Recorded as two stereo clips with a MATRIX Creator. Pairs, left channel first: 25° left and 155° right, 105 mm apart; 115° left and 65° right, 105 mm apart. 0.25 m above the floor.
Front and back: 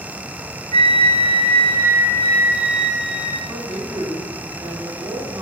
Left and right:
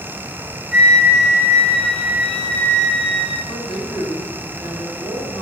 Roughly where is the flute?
Ahead left.